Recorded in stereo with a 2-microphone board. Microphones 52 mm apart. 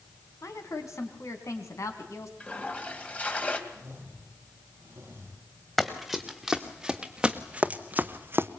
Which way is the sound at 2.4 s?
25° left (ahead or behind).